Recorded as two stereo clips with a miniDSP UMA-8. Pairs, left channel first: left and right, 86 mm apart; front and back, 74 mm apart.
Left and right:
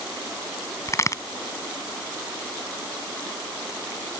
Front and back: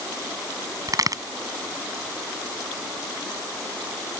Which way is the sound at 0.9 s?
145° left.